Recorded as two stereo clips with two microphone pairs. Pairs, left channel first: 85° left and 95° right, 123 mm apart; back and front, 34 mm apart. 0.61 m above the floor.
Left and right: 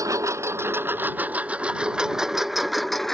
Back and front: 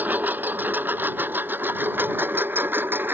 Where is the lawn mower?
30° right; by 3.1 s straight ahead.